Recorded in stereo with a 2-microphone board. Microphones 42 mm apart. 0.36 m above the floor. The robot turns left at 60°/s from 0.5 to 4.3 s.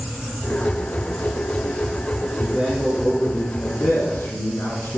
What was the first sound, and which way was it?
A man speaking, 160° right.